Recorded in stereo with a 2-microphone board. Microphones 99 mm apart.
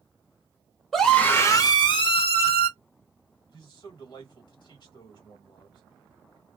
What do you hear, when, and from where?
0.9 s a scream: centre (ahead or behind), 0.7 m; by 2.7 s 70° left (ahead or behind), 1.2 m
3.5 s a man speaking: 50° left (ahead or behind), 2.0 m